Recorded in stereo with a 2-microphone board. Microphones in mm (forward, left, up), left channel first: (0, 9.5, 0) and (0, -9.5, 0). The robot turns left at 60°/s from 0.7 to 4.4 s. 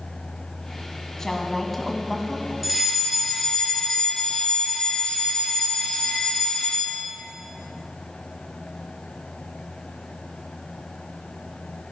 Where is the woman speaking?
50° left, 1.7 m; by 2.5 s 30° right, 1.7 m.